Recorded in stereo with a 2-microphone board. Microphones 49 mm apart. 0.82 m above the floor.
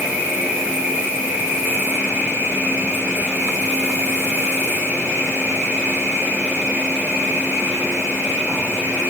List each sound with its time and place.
0.0 s an insect: 90° right, 5 m